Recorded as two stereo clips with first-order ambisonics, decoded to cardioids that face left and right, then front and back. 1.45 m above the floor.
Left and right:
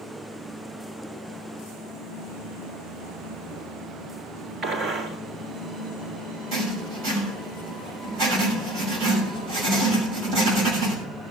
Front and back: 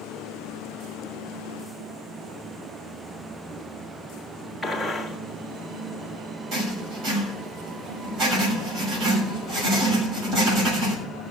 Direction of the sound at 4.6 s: 95° right.